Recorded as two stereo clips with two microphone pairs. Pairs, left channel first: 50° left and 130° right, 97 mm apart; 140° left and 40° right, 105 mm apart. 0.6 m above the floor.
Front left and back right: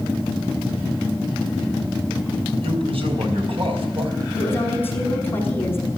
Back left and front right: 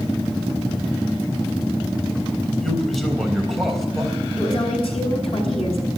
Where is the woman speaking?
120° left, 5.5 m.